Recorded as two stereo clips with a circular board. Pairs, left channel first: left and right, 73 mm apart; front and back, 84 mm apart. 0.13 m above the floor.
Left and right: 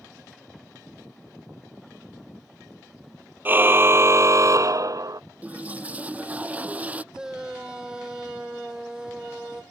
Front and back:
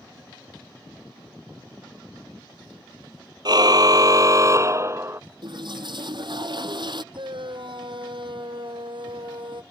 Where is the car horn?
150° right; by 5.2 s 120° right.